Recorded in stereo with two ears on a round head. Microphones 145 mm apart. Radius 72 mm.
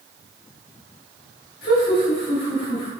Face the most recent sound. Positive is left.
turn(degrees=55)  # may be behind; listen again after turning